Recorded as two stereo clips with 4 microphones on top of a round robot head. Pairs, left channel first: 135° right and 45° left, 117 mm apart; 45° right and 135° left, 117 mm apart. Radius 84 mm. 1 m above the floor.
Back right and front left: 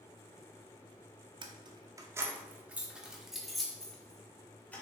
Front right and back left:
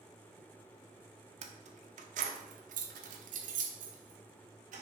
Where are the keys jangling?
100° left, 1.0 m; by 4.8 s 150° left, 2 m.